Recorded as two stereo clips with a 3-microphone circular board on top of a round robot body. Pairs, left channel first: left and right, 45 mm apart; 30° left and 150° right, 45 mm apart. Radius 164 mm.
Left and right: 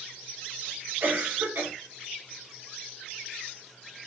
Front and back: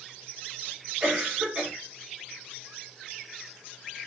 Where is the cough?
95° right, 3 m.